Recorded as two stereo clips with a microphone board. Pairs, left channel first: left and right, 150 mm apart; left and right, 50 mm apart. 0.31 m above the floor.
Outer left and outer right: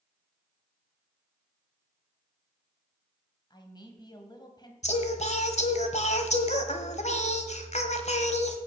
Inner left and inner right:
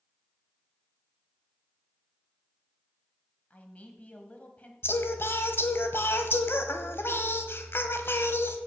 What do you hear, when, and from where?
3.5 s a man speaking: 30° left (ahead or behind), 1.9 m
4.8 s singing: 50° left (ahead or behind), 1.3 m